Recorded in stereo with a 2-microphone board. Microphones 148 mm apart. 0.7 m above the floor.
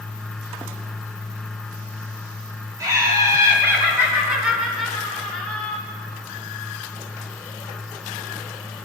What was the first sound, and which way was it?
Laughter, 25° right (ahead or behind).